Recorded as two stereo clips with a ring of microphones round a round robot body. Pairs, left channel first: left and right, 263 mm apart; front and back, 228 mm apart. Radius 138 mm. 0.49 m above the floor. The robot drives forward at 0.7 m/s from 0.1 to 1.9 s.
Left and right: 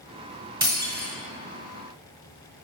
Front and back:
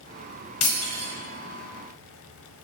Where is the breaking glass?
15° right, 1.8 m.